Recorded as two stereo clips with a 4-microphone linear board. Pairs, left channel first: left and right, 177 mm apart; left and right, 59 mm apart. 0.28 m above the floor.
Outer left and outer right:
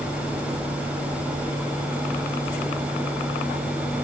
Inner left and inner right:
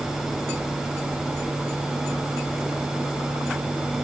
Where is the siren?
I don't hear a siren.